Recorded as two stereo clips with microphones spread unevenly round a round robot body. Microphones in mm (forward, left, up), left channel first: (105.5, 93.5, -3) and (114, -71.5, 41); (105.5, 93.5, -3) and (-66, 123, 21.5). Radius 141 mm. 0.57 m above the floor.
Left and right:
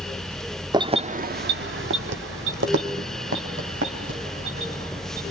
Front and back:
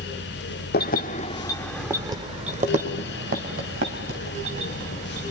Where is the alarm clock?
No alarm clock in this recording.